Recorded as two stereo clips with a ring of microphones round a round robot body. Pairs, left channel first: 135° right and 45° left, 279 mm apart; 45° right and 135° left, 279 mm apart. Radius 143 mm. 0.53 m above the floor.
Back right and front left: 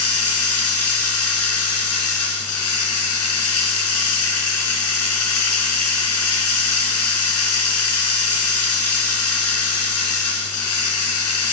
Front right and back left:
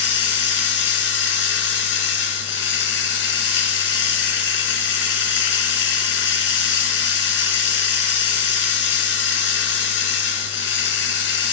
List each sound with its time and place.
0.0 s running water: 95° right, 3.5 m